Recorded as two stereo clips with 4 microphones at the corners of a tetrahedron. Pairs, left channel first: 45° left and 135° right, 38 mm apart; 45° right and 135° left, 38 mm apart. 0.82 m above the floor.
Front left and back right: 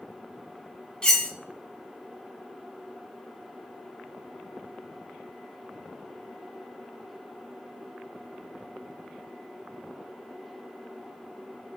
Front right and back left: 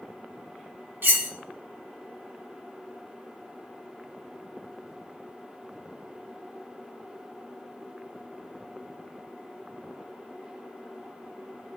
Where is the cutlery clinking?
115° left, 0.5 m.